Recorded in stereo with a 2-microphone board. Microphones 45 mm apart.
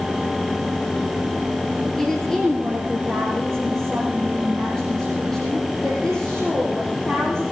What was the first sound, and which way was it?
A woman speaking, 10° left (ahead or behind).